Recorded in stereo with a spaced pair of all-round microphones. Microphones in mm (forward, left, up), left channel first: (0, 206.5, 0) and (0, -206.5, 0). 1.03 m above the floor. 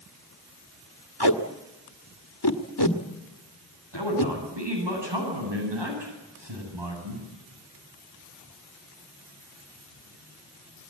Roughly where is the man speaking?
Right.